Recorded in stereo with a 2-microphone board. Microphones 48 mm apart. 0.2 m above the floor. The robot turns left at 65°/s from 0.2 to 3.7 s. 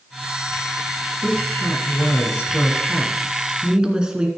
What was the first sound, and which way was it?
A woman speaking, 145° left.